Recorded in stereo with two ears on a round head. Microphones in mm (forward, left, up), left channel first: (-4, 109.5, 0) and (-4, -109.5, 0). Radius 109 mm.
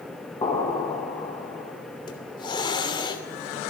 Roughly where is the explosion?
Centre.